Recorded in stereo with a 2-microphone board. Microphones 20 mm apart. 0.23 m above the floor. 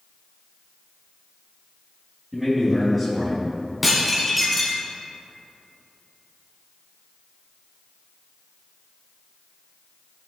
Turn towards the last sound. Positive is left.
turn(degrees=-5)  # may be behind; listen again after turning